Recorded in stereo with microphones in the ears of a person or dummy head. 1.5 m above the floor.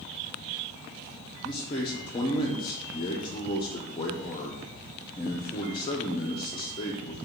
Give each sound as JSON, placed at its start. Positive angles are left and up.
{"t": 1.4, "sound": "a man speaking", "side_deg": 25, "distance_m": 0.6}